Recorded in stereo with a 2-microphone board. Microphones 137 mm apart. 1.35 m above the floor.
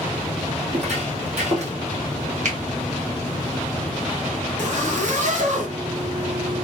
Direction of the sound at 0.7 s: 50° right (ahead or behind).